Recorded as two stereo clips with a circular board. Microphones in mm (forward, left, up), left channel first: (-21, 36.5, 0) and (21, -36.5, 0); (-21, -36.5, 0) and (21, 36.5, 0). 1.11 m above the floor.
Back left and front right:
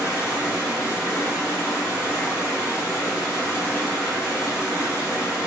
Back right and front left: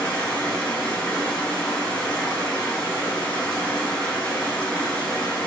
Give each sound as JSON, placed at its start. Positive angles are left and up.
{"t": 0.0, "sound": "running water", "azimuth_deg": 170, "distance_m": 2.0}